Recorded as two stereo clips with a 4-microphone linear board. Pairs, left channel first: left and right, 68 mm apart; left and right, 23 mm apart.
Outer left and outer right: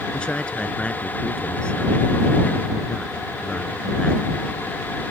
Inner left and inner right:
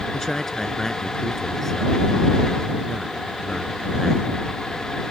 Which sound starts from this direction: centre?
A man speaking, at 0.1 s.